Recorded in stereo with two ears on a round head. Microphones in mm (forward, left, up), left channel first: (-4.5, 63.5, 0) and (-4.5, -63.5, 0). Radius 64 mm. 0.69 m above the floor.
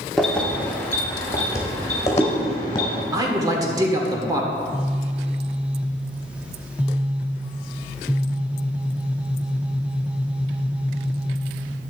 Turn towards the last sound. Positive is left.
turn(degrees=-10)  # may be behind; listen again after turning